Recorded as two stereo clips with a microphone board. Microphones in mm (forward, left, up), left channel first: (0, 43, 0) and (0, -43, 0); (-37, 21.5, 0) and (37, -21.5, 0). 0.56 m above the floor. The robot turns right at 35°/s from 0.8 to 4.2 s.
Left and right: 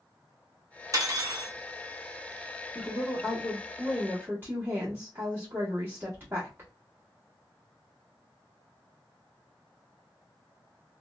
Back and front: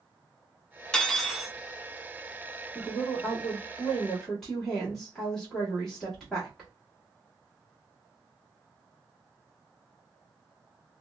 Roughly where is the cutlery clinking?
Behind right.